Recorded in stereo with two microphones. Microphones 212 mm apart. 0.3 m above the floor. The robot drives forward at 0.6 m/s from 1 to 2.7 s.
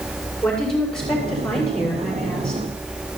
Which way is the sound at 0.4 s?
5° left (ahead or behind).